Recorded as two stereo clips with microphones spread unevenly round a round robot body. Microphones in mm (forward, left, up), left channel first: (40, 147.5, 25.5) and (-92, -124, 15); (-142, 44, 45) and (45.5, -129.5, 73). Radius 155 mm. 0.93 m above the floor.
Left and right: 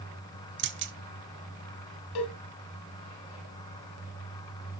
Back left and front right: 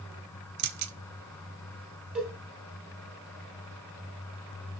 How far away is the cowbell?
About 2.5 m.